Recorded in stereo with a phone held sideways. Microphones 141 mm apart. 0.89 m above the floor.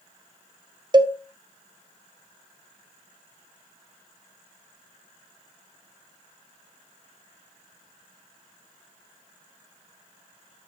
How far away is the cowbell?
About 0.5 m.